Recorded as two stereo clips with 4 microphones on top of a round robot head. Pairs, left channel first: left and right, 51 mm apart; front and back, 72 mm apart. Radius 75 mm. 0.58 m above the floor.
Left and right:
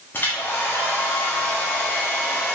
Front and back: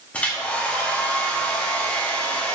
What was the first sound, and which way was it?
A hair dryer, 60° left.